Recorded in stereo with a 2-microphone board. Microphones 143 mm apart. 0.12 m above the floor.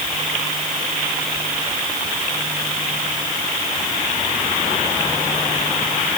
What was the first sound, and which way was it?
Only background noise.